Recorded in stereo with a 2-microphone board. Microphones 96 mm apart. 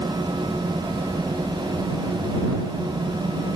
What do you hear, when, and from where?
Only background noise.